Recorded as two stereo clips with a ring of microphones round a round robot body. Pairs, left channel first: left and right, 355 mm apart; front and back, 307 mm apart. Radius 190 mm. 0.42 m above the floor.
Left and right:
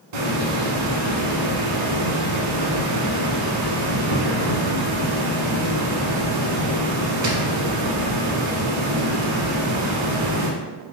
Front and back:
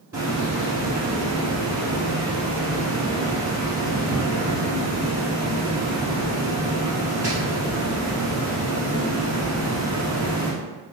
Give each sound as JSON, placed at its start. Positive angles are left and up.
{"t": 0.1, "sound": "a hiss", "azimuth_deg": -95, "distance_m": 0.9}